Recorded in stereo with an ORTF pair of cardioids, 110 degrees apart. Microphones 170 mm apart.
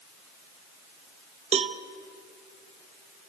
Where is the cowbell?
35° right, 1.1 m.